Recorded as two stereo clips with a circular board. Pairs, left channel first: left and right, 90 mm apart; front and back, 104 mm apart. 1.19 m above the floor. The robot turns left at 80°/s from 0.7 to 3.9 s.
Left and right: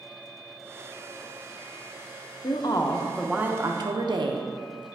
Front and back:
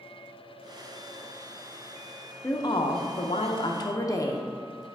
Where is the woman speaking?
65° left, 0.7 m; by 4.9 s 55° right, 0.7 m.